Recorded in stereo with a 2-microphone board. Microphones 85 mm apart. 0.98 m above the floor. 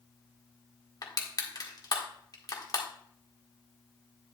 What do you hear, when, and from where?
1.0 s crushing: 50° left (ahead or behind), 1.8 m